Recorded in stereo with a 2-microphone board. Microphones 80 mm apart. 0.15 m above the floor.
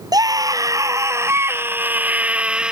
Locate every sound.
0.1 s a scream: 50° right (ahead or behind); by 2.7 s 10° right (ahead or behind)